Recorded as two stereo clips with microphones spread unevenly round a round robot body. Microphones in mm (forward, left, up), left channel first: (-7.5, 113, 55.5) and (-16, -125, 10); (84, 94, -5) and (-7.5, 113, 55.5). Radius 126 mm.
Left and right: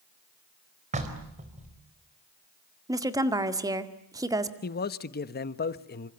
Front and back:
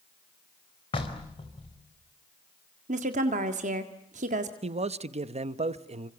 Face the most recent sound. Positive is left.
turn(degrees=140)